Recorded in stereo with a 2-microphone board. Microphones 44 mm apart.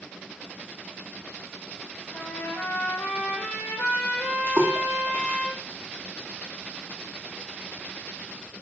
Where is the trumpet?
60° left (ahead or behind), 2.5 m.